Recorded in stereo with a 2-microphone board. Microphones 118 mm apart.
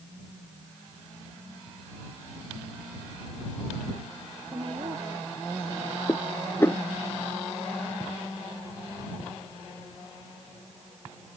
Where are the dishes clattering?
20° left (ahead or behind).